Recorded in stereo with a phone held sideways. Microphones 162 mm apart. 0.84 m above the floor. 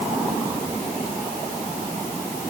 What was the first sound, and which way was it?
Only background noise.